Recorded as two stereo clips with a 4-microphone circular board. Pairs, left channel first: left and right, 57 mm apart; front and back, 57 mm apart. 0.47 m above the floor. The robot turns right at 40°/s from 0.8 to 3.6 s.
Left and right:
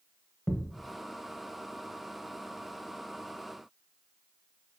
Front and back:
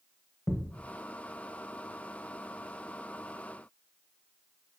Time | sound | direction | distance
0.5 | a thud | 30° left | 0.8 m